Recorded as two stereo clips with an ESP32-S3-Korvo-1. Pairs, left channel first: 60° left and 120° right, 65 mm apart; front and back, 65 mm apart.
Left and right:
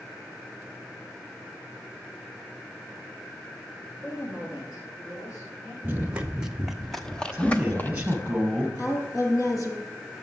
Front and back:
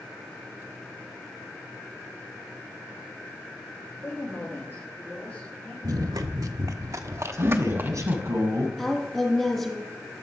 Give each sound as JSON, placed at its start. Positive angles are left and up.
{"t": 4.0, "sound": "a woman speaking", "azimuth_deg": 50, "distance_m": 7.0}
{"t": 5.8, "sound": "running footsteps", "azimuth_deg": 180, "distance_m": 1.4}
{"t": 7.3, "sound": "a man speaking", "azimuth_deg": 175, "distance_m": 3.0}
{"t": 8.8, "sound": "a woman speaking", "azimuth_deg": 80, "distance_m": 3.5}